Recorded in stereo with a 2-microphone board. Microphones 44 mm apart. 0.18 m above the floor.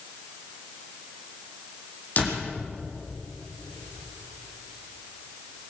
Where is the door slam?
35° left (ahead or behind), 6.5 m.